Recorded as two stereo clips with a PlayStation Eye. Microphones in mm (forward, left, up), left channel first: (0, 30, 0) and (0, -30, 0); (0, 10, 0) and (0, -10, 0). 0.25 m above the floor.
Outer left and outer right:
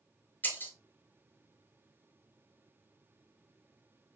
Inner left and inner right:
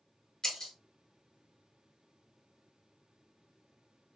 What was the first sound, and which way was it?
Breaking glass, 30° left (ahead or behind).